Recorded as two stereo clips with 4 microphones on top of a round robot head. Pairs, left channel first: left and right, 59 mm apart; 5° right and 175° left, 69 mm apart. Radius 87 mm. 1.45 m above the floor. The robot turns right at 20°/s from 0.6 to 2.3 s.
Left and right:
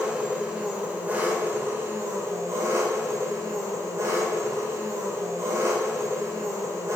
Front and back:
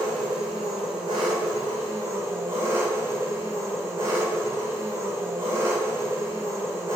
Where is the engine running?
160° right, 1.8 m; by 7.0 s 125° right, 1.8 m.